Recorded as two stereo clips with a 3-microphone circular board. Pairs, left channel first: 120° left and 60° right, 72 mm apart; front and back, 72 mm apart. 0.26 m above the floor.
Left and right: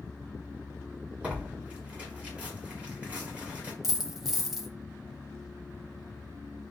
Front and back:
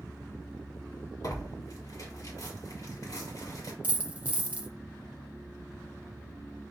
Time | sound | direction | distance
1.2 | tearing paper | 10° left | 1.4 m
3.8 | a dropped coin | 140° right | 0.5 m